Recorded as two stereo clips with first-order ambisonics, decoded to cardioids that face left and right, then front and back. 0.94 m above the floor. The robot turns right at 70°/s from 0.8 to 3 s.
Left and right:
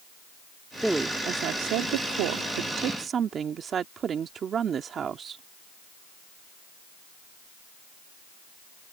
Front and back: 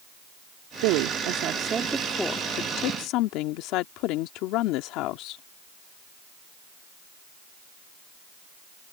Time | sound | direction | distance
0.8 | a woman speaking | straight behind | ?